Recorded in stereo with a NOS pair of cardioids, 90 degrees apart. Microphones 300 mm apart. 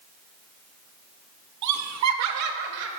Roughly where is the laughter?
Right.